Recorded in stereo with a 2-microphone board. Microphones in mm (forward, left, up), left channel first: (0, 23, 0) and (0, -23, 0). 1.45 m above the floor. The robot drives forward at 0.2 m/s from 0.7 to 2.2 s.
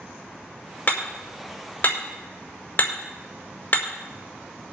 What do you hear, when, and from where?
0.9 s hammering: 45° left (ahead or behind), 4 m